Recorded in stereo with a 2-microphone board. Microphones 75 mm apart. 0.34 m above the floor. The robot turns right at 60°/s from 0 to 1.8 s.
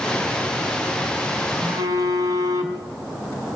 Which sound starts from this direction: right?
A phone buzzing, at 1.6 s.